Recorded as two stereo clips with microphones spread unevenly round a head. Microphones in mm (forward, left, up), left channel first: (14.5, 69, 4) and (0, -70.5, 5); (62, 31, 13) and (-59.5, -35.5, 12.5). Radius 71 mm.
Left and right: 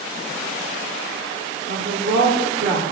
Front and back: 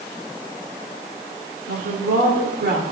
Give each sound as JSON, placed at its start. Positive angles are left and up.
{"t": 1.7, "sound": "a woman speaking", "azimuth_deg": -130, "distance_m": 2.5}